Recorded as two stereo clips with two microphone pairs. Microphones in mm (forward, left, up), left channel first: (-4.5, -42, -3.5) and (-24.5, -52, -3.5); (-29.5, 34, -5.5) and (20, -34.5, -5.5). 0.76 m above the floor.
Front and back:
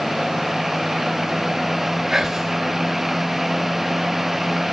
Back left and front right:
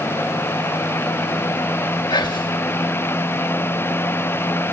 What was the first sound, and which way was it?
Whispering, 140° left.